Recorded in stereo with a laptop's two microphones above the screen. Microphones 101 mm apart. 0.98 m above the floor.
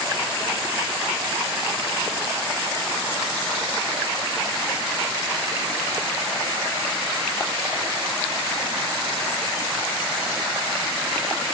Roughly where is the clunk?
I don't hear a clunk.